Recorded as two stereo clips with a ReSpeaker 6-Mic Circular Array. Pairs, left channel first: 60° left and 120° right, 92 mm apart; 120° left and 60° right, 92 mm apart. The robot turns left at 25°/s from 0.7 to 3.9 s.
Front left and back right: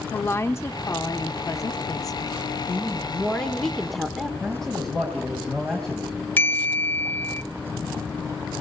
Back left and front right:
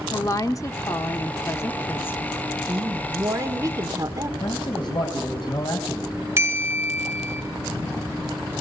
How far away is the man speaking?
About 3 m.